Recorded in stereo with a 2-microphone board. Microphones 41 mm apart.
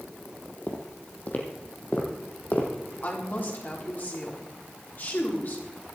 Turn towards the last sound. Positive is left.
turn(degrees=50)  # may be behind; listen again after turning